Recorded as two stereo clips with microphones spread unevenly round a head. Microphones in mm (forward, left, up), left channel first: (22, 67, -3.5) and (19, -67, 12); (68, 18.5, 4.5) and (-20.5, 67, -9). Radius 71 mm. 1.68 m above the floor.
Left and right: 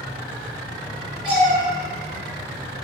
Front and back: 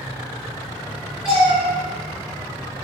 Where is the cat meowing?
115° right, 2.0 m.